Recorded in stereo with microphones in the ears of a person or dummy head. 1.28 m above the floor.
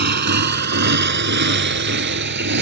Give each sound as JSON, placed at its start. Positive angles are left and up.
{"t": 0.0, "sound": "a motorcycle", "side_deg": -45}